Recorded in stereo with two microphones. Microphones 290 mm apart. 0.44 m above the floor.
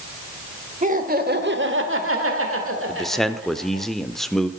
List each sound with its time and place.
0.8 s laughter: 25° right (ahead or behind), 2 m; by 3.9 s 40° right (ahead or behind), 3 m
2.9 s a man speaking: centre (ahead or behind), 0.9 m